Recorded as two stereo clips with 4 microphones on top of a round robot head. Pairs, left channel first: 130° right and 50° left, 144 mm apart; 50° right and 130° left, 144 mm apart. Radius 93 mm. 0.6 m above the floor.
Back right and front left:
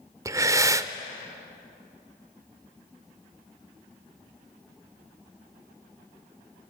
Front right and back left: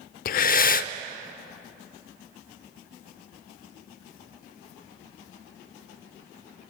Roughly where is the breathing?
Ahead.